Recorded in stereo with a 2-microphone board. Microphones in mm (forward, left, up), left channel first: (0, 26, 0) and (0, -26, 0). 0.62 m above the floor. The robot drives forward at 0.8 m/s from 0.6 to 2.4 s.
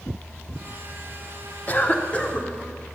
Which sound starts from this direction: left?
A cough, at 1.7 s.